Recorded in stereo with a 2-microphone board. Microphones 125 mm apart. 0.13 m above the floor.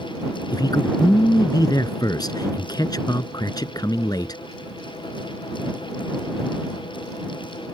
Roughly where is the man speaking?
Left.